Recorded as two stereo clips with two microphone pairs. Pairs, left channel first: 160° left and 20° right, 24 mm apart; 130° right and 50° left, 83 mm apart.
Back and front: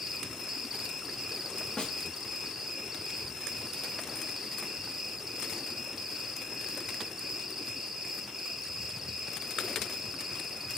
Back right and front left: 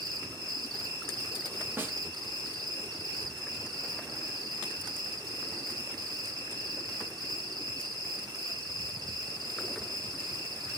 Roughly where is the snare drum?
Behind left.